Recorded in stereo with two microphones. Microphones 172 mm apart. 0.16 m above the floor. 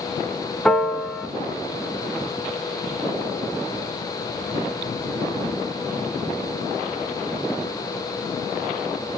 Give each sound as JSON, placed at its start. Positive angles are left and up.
{"t": 0.7, "sound": "a piano", "side_deg": 0, "distance_m": 0.6}